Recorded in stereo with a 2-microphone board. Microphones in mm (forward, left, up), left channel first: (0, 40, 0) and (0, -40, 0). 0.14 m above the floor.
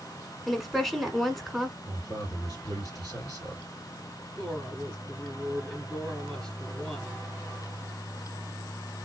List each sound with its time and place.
0.5 s a woman speaking: centre (ahead or behind), 1.1 m
1.9 s a man speaking: 55° left (ahead or behind), 3 m
4.4 s a woman speaking: 10° left (ahead or behind), 1.4 m